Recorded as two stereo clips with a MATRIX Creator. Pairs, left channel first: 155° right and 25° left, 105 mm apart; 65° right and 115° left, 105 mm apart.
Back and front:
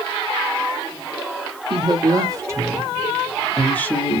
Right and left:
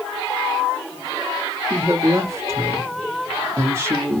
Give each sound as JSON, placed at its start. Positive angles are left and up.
{"t": 1.7, "sound": "a woman speaking", "azimuth_deg": 55, "distance_m": 1.4}